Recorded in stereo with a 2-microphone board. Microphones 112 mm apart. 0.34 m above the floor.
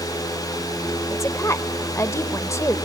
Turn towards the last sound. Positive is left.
turn(degrees=25)  # may be behind; listen again after turning